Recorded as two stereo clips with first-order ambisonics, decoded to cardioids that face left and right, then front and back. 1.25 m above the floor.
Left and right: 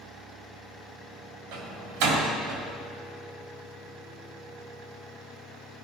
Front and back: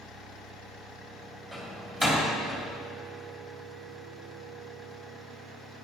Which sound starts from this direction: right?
A door slam, at 1.5 s.